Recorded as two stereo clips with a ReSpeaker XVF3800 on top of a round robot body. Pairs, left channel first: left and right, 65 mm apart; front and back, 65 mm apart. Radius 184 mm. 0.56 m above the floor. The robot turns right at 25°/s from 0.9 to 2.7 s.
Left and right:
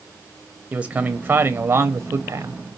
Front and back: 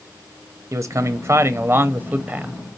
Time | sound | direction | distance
0.7 | a man speaking | 155° right | 0.7 m